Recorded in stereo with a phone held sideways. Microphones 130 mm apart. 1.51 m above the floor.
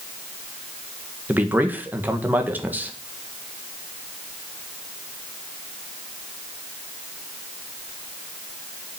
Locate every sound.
1.3 s a man speaking: 15° right (ahead or behind), 1.6 m